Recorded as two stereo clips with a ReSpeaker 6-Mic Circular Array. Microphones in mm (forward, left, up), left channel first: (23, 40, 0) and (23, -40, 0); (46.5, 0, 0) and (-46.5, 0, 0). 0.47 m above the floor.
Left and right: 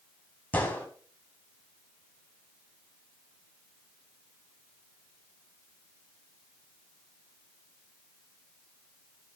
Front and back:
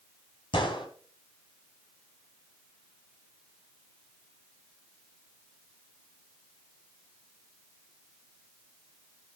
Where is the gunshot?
25° left, 4 m.